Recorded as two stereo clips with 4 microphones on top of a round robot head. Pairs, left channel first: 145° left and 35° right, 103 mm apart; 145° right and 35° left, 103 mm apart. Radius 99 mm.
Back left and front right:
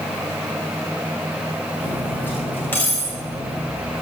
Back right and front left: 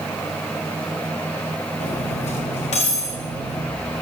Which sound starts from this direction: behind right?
Cutlery clinking, at 1.8 s.